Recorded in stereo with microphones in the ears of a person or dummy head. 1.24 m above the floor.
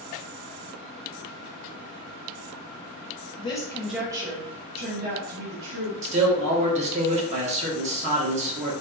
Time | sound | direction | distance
3.4 | a woman speaking | 25° left (ahead or behind) | 0.6 m
6.0 | a man speaking | 35° right (ahead or behind) | 0.9 m